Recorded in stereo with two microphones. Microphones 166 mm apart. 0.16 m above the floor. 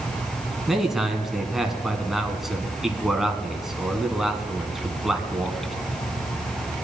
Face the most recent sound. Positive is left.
turn(degrees=0)  # may be behind; listen again after turning